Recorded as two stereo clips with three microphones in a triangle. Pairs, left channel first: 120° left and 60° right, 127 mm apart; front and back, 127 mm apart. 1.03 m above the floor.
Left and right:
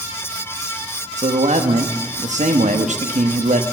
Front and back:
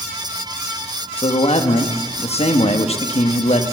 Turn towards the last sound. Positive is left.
turn(degrees=-35)